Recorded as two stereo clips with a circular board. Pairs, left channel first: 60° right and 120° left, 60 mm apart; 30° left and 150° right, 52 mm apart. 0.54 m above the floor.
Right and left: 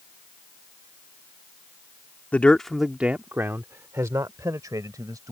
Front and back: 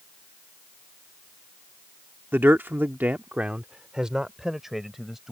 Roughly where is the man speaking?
Behind right.